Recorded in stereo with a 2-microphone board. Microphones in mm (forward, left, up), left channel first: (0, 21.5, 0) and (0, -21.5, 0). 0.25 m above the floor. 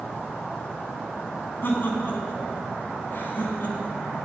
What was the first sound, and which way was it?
Laughter, 45° left (ahead or behind).